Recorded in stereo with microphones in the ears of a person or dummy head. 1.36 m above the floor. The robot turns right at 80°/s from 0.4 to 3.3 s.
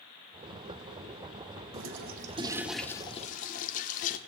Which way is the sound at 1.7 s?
80° right.